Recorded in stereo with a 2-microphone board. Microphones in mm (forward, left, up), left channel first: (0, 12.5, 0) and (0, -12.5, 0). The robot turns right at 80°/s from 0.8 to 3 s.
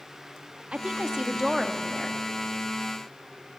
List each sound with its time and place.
0.7 s a woman speaking: 75° right, 1.1 m; by 2.2 s 35° left, 1.1 m